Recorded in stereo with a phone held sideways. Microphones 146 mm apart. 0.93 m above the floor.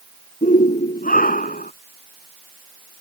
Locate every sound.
0.4 s a shout: 70° left (ahead or behind); by 1.7 s 75° left (ahead or behind)